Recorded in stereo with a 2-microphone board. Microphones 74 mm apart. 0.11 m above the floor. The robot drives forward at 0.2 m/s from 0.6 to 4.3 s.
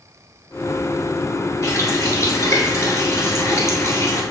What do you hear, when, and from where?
1.6 s a running tap: 40° left (ahead or behind), 1.1 m